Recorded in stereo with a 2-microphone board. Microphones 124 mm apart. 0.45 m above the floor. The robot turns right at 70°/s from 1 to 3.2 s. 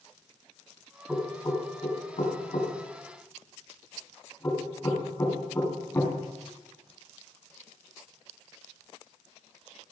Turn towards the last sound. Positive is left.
turn(degrees=20)  # may be behind; listen again after turning